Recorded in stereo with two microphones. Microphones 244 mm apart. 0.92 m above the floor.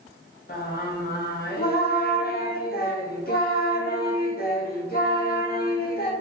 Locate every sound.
0.5 s singing: 40° left (ahead or behind), 0.5 m